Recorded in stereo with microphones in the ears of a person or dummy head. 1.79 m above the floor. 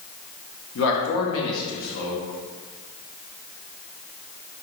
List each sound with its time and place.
0.8 s a man speaking: 75° left (ahead or behind), 1.2 m